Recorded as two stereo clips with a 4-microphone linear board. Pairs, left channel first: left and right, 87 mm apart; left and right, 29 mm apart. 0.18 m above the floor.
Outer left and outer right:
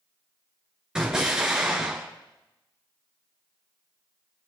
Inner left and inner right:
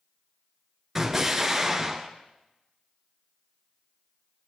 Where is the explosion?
10° right (ahead or behind), 2.5 m.